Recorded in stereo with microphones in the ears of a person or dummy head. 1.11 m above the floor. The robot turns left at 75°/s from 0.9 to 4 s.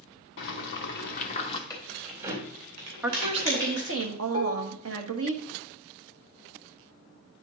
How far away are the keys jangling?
About 3 m.